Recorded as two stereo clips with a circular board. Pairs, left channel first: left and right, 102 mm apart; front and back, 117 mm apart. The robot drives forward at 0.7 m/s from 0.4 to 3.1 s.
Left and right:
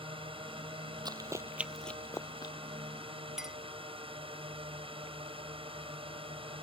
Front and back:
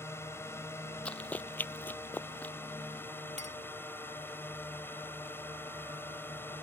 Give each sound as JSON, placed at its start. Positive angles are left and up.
{"t": 0.0, "sound": "a drone", "azimuth_deg": -65}
{"t": 1.1, "sound": "running footsteps", "azimuth_deg": -75}
{"t": 3.4, "sound": "a clink", "azimuth_deg": -175}